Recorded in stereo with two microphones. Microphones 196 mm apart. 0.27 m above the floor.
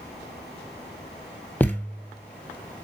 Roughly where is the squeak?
No squeak in this recording.